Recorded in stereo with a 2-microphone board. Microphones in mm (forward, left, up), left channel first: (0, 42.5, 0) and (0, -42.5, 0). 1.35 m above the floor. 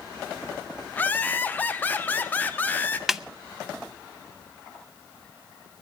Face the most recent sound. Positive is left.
turn(degrees=-5)  # may be behind; listen again after turning